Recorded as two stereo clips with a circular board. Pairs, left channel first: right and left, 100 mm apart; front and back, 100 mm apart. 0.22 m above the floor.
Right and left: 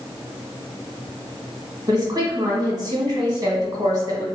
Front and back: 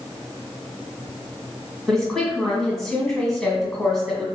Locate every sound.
1.9 s a woman speaking: 85° left, 1.4 m